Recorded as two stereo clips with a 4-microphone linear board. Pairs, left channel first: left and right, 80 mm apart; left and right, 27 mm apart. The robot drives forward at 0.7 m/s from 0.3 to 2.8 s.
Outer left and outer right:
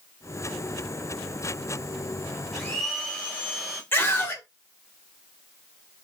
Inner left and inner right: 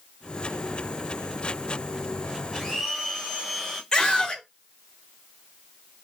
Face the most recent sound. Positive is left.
turn(degrees=30)  # may be behind; listen again after turning